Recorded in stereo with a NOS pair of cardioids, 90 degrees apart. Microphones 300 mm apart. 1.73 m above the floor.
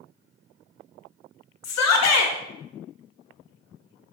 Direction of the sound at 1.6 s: 65° left.